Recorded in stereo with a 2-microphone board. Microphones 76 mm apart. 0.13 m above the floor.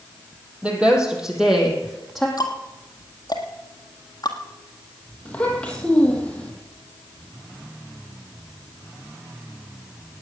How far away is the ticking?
About 1.6 m.